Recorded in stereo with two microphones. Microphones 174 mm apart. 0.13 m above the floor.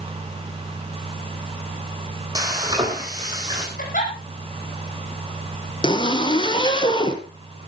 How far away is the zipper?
About 2 m.